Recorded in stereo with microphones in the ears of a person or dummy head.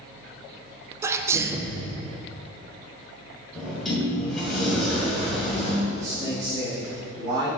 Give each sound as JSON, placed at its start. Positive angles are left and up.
{"t": 1.0, "sound": "a sneeze", "side_deg": -15, "distance_m": 0.5}
{"t": 3.5, "sound": "a sliding door", "side_deg": -5, "distance_m": 2.0}
{"t": 5.9, "sound": "a man speaking", "side_deg": -30, "distance_m": 2.5}